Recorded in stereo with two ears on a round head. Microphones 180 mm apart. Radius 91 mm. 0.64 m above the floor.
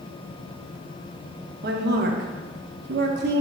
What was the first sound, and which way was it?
A woman speaking, 55° right (ahead or behind).